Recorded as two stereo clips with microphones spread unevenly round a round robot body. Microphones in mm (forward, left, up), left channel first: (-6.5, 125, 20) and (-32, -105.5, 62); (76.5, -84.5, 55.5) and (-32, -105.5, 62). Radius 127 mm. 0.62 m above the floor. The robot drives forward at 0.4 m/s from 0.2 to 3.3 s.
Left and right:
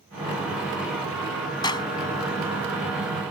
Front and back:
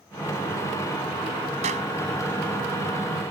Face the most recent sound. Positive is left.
turn(degrees=160)